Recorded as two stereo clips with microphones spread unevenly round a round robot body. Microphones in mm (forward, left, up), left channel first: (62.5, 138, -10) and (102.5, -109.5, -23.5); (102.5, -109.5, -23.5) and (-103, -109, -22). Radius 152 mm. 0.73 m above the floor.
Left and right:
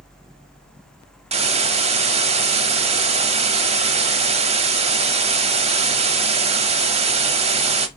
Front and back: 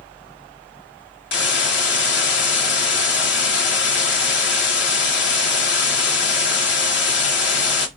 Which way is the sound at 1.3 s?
15° right.